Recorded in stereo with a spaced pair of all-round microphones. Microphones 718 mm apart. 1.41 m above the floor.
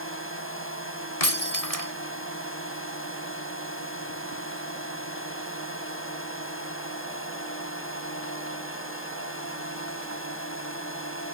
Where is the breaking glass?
55° left (ahead or behind).